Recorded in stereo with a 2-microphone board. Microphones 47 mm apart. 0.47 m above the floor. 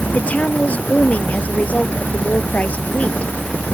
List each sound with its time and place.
0.1 s a woman speaking: 30° left (ahead or behind)